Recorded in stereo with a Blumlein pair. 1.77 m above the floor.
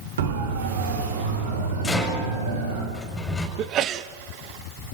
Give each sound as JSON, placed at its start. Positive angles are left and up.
{"t": 0.2, "sound": "a siren", "azimuth_deg": -60, "distance_m": 5.0}
{"t": 1.8, "sound": "a rattle", "azimuth_deg": 10, "distance_m": 6.0}
{"t": 3.6, "sound": "a sneeze", "azimuth_deg": -30, "distance_m": 1.1}